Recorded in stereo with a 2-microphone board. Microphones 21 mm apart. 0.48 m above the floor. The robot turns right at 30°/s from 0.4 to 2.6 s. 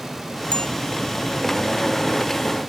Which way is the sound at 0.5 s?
50° left (ahead or behind).